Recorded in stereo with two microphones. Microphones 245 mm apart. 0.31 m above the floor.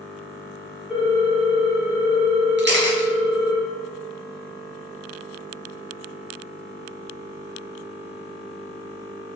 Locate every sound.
0.9 s a ringtone: centre (ahead or behind), 1.9 m
2.6 s a camera shutter: 45° right (ahead or behind), 0.7 m